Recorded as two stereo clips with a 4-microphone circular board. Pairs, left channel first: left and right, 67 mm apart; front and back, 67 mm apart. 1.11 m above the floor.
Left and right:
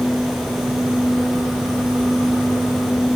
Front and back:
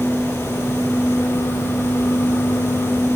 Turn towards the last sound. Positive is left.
No sound to turn to.